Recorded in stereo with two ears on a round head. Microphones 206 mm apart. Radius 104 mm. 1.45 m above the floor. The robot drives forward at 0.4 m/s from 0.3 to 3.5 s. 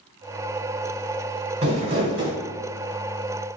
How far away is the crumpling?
About 1.8 m.